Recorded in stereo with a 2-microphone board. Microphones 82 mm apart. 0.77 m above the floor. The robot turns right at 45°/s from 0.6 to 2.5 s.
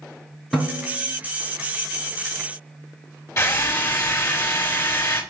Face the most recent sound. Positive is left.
turn(degrees=40)  # may be behind; listen again after turning